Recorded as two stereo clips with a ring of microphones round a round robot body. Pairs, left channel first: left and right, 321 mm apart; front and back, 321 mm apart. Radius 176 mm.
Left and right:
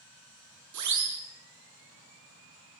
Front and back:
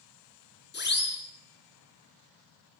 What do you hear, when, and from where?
0.7 s a siren: 55° right, 8.5 m